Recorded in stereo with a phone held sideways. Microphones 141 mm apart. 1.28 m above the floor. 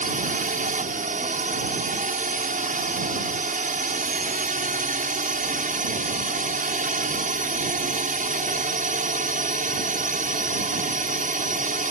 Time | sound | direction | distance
0.0 | a drone | 70° right (ahead or behind) | ?